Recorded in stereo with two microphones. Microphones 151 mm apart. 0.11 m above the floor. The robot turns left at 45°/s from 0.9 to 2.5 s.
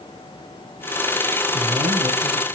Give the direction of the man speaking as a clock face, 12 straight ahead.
2 o'clock.